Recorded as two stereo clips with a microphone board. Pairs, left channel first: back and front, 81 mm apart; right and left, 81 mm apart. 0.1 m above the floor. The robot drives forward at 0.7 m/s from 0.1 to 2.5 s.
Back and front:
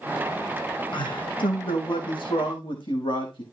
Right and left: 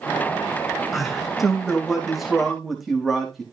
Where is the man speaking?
175° left, 5 m.